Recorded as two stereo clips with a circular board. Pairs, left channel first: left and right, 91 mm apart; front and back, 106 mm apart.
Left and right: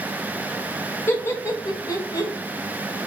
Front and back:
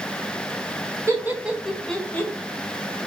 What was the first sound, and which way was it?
Laughter, 140° left.